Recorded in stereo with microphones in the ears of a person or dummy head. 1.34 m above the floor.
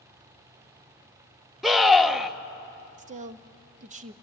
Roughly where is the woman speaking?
Right.